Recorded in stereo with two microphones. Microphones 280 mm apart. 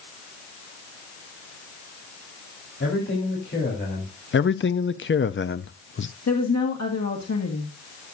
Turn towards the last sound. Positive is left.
turn(degrees=70)  # may be behind; listen again after turning